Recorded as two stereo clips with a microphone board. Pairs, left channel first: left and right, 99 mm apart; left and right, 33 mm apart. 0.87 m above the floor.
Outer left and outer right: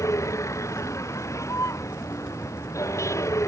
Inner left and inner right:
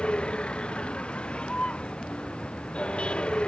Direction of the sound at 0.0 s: 30° left (ahead or behind).